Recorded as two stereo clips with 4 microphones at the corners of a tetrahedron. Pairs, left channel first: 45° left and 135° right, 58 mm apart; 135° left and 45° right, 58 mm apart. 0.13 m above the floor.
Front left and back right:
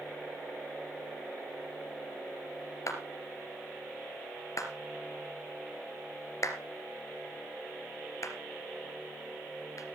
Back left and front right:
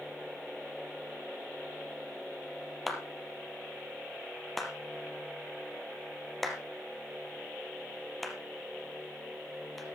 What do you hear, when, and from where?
2.9 s a clap: 45° left, 3 m